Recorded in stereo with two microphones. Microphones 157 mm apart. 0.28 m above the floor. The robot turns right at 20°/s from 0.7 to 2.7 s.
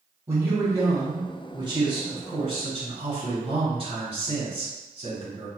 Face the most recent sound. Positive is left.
turn(degrees=-110)